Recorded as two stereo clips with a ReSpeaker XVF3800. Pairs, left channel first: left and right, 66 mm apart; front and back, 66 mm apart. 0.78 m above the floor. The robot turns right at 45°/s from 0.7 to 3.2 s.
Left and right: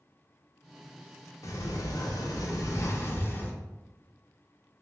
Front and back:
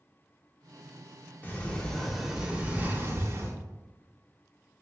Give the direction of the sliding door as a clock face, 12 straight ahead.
10 o'clock.